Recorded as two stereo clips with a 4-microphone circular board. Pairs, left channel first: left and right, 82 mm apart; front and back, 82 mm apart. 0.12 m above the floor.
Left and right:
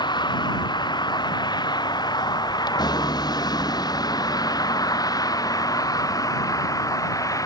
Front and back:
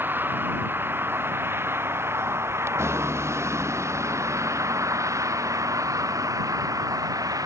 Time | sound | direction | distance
0.0 | a vehicle | 115° left | ?